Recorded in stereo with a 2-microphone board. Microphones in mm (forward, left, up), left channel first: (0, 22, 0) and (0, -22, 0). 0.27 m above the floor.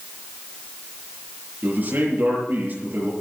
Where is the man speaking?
45° right (ahead or behind), 7 m.